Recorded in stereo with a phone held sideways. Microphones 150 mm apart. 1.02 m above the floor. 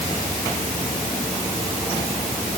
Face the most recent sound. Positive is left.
No sound to turn to.